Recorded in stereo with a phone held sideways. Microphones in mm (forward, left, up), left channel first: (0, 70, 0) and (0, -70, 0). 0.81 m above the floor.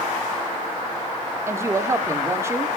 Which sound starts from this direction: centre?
A woman speaking, at 1.5 s.